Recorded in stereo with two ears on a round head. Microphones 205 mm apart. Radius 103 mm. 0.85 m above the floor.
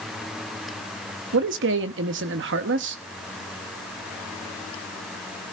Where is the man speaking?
50° right (ahead or behind), 1.0 m.